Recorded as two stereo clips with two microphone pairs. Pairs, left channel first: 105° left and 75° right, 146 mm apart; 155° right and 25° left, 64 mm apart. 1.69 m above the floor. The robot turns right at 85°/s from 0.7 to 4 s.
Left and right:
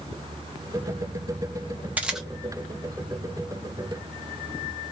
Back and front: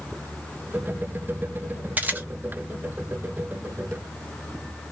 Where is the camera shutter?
5° right, 0.8 m; by 2.3 s 20° left, 0.8 m.